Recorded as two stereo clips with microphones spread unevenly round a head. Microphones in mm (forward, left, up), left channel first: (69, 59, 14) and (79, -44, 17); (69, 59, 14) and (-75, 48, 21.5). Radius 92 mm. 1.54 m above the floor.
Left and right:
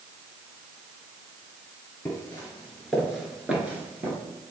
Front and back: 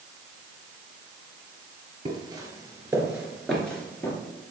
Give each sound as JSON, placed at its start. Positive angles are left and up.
{"t": 2.0, "sound": "footsteps", "azimuth_deg": 160, "distance_m": 1.8}